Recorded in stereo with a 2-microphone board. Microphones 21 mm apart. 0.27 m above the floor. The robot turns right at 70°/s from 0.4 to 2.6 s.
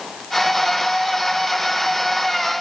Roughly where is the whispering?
I don't hear whispering.